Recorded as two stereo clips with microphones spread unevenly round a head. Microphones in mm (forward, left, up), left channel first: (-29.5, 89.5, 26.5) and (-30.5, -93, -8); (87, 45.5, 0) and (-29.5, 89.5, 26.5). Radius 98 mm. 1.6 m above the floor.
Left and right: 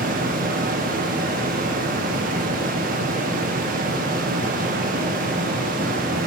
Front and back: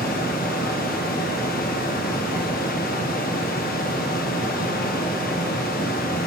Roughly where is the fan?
Ahead right.